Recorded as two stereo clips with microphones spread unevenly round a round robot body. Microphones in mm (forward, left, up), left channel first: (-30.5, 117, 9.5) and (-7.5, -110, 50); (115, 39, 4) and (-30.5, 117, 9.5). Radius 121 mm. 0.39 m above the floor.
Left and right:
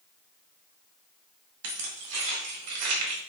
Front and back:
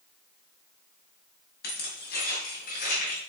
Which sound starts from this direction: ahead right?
Keys jangling, at 1.6 s.